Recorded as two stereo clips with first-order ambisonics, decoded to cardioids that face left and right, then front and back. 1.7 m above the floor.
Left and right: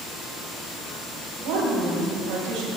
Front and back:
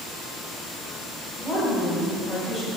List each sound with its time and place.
1.4 s a woman speaking: 75° right, 2.5 m; by 2.7 s 70° right, 1.8 m